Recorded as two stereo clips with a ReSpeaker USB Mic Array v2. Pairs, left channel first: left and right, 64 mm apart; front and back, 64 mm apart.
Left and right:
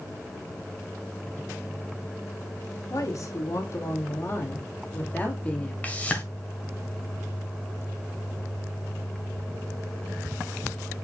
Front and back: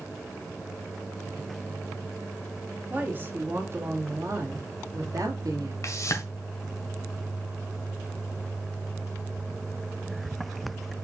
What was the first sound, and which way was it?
A woman speaking, 120° left.